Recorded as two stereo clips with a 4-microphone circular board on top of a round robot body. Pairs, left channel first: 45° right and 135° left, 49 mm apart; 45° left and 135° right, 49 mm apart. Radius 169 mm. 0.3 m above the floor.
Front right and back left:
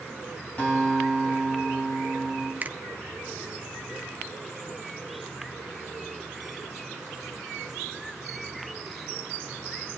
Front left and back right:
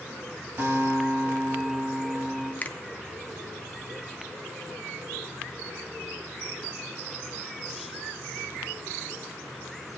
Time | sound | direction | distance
0.6 | a guitar | 100° right | 3 m
2.6 | a finger snap | 95° left | 0.8 m